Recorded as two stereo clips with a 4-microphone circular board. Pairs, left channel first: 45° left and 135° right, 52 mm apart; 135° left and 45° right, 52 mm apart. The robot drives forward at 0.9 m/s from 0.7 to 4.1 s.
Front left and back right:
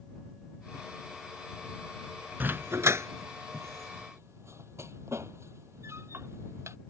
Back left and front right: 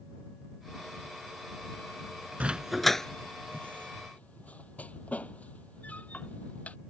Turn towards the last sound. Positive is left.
turn(degrees=-165)